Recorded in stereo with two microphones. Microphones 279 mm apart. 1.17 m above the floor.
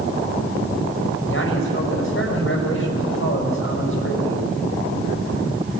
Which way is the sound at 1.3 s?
45° left (ahead or behind).